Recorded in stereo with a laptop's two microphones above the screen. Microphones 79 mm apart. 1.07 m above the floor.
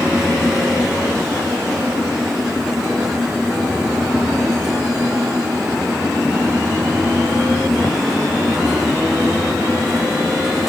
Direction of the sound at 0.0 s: 5° right (ahead or behind).